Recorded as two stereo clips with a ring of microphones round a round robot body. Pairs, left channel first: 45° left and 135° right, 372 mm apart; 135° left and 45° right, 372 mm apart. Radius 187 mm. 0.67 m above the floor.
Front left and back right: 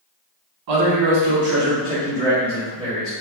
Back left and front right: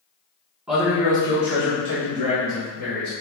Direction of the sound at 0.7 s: 130° right.